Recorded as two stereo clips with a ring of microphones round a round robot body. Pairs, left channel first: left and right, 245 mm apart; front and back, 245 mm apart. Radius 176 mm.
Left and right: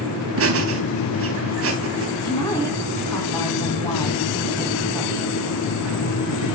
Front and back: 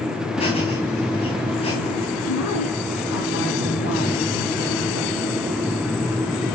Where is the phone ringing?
I don't hear a phone ringing.